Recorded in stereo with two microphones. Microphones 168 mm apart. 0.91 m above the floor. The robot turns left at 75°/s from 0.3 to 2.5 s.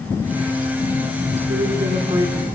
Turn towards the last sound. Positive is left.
turn(degrees=-170)